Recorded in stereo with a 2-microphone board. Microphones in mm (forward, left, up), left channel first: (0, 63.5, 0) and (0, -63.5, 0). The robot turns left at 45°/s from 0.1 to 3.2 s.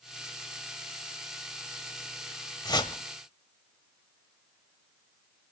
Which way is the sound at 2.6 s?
35° left (ahead or behind).